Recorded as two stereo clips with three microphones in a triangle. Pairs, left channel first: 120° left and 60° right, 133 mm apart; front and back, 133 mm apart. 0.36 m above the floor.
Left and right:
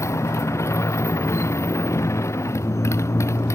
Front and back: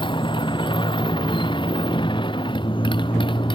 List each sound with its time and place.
0.0 s a motorcycle: 50° left